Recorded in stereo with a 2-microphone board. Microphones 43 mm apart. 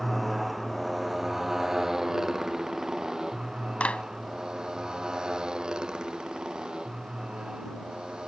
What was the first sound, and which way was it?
A motorcycle, centre (ahead or behind).